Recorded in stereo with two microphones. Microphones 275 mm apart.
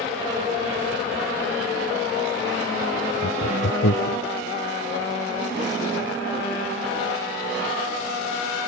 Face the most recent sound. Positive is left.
turn(degrees=65)  # may be behind; listen again after turning